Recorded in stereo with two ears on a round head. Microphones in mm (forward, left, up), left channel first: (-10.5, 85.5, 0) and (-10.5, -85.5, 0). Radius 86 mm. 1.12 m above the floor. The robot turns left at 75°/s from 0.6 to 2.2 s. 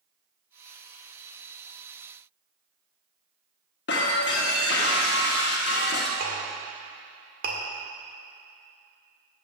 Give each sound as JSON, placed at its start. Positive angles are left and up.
{"t": 3.9, "sound": "breaking glass", "side_deg": 60, "distance_m": 1.3}
{"t": 6.2, "sound": "a clink", "side_deg": -50, "distance_m": 1.8}